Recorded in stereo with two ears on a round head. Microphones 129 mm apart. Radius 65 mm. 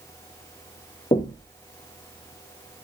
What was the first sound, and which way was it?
Knocking, 30° left (ahead or behind).